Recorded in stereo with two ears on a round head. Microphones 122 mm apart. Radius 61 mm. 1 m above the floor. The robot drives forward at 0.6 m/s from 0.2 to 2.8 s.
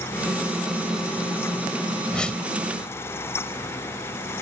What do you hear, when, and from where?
2.1 s a whoosh: 5° left (ahead or behind)